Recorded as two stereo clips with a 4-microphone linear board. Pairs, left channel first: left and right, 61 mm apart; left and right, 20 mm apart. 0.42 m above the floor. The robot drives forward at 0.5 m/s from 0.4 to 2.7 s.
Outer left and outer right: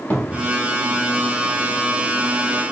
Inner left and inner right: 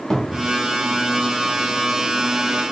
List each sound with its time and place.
0.1 s a cupboard door: 20° left (ahead or behind), 1.1 m